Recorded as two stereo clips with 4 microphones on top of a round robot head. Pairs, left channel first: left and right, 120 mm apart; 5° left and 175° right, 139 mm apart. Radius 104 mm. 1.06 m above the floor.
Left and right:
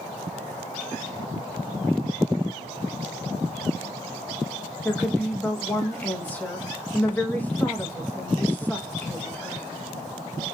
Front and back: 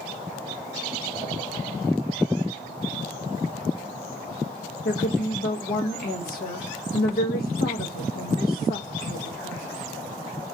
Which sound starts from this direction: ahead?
A woman speaking, at 4.8 s.